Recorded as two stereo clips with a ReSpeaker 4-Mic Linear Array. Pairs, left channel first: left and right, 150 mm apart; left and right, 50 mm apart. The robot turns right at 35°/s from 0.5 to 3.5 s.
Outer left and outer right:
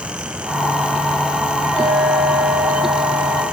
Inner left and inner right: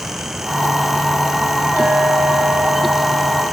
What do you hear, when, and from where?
1.8 s a clink: 125° right, 6.5 m; by 3.4 s 65° right, 6.5 m